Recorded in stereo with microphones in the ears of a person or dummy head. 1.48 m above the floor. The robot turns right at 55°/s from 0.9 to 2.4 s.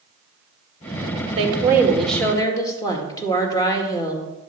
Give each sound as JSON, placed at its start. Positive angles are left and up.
{"t": 1.4, "sound": "a woman speaking", "azimuth_deg": -35, "distance_m": 1.8}